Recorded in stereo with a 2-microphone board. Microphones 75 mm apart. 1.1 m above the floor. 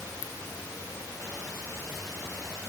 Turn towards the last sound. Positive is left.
No sound to turn to.